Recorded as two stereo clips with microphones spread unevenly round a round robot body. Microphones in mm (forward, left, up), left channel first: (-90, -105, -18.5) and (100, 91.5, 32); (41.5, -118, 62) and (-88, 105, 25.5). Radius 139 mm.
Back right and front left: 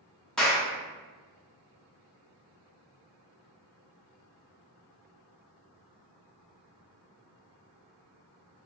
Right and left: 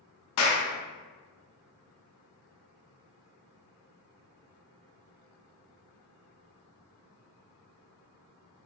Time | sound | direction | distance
0.4 | a clap | 55° right | 0.7 m